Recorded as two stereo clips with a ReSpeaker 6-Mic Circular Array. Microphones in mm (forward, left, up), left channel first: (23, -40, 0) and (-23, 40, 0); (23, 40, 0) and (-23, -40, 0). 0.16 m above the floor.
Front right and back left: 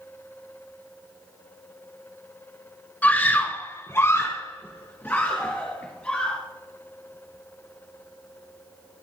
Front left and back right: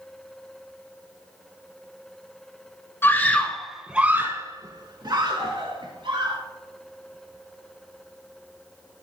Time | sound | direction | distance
3.0 | a scream | 5° left | 2 m